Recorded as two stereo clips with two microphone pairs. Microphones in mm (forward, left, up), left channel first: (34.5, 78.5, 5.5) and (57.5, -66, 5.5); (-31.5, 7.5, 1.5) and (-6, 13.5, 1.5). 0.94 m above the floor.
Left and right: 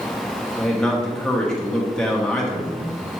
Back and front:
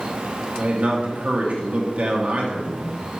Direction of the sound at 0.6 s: 15° left.